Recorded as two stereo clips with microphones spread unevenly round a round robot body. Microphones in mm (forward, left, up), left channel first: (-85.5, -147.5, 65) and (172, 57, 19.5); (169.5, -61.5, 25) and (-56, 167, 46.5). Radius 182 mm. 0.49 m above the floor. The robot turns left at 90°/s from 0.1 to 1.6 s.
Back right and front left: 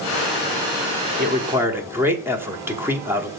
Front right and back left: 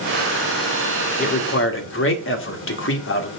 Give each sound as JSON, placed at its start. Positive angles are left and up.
{"t": 1.2, "sound": "a man speaking", "azimuth_deg": 5, "distance_m": 1.6}